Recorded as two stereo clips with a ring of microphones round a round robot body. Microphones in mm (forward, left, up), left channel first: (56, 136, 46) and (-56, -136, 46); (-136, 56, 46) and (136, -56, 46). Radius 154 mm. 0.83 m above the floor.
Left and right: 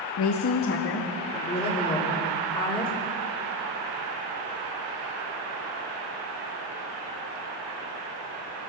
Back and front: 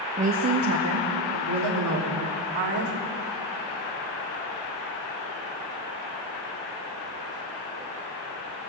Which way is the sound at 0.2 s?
45° left.